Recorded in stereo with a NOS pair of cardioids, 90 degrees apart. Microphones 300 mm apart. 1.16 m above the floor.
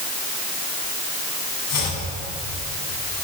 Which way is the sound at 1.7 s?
65° left.